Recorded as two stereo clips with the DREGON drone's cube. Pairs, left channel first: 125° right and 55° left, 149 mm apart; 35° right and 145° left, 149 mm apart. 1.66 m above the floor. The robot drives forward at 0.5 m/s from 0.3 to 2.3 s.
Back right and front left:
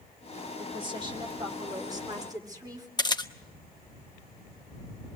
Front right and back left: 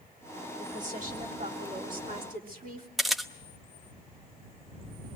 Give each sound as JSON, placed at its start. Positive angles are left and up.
{"t": 0.6, "sound": "a woman speaking", "azimuth_deg": 110, "distance_m": 4.0}
{"t": 3.0, "sound": "a camera shutter", "azimuth_deg": -125, "distance_m": 1.0}